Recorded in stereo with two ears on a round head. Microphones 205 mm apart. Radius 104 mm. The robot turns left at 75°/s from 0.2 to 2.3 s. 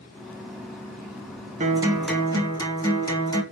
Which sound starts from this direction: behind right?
A guitar, at 1.6 s.